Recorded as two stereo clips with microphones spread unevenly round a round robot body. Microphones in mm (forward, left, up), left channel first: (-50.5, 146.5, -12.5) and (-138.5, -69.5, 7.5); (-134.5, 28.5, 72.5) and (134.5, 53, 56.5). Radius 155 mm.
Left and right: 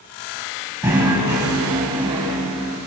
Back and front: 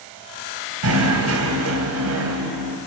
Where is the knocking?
30° right, 3 m.